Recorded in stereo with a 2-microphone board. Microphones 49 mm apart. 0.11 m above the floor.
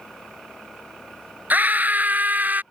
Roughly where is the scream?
Right.